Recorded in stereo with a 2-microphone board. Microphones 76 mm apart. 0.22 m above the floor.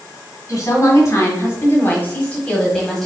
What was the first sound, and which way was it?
A woman speaking, 40° left (ahead or behind).